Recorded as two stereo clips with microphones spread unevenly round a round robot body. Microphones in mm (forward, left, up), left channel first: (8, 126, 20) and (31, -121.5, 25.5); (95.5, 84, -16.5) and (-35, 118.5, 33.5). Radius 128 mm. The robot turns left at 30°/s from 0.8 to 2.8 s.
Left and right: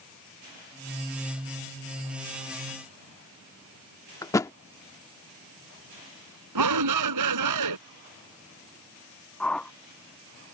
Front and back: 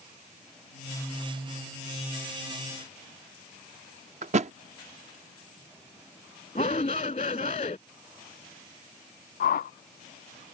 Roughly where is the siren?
No siren in this recording.